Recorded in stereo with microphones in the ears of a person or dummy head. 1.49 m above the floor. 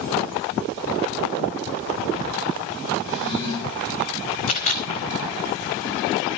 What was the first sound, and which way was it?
A drawer, 55° right (ahead or behind).